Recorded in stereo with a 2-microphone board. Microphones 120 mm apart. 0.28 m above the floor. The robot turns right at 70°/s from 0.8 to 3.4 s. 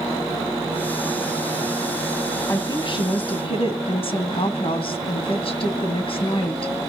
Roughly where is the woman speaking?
Ahead left.